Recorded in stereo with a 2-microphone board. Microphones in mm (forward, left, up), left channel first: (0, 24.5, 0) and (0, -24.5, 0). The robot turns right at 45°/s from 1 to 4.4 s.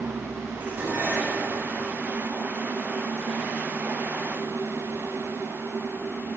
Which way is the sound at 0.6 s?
35° right (ahead or behind).